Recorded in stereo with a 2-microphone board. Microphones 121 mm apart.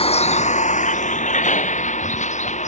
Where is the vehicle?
55° left (ahead or behind); by 2.7 s 75° left (ahead or behind).